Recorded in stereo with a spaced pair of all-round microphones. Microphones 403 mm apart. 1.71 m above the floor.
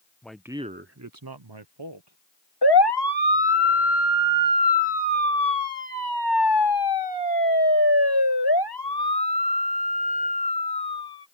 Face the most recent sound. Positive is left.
turn(degrees=70)  # may be behind; listen again after turning